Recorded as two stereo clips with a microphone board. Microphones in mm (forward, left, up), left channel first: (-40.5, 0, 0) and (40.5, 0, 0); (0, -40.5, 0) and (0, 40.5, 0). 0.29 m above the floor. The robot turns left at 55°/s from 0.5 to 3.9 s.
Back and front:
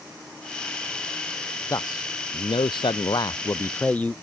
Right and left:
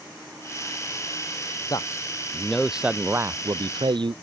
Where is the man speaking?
130° right; by 4.1 s 110° left.